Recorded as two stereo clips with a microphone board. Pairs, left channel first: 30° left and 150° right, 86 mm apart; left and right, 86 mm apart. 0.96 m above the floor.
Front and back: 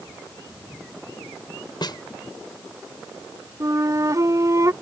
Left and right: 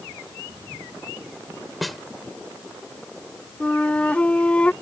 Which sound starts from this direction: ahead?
A snare drum, at 1.8 s.